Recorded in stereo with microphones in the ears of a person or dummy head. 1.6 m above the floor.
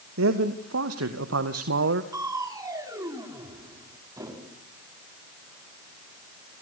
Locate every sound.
0.2 s a man speaking: 90° right, 2.5 m; by 2.0 s 60° right (ahead or behind), 1.4 m
2.1 s crushing: 15° right (ahead or behind), 4 m